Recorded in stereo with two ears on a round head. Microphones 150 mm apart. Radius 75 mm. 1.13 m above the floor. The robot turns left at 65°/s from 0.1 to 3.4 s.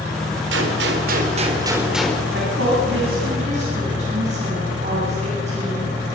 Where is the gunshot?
80° right, 3.5 m; by 2.2 s 165° left, 3.5 m.